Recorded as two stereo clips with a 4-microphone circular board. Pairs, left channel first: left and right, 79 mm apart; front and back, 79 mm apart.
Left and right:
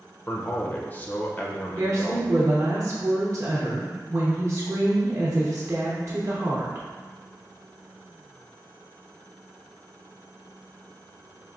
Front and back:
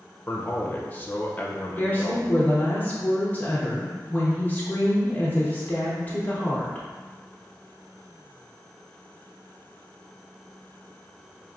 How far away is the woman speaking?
About 0.8 m.